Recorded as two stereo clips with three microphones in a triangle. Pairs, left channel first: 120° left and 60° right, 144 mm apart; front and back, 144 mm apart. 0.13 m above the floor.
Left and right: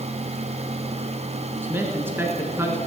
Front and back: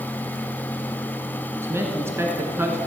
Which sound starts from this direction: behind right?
A man speaking, at 1.6 s.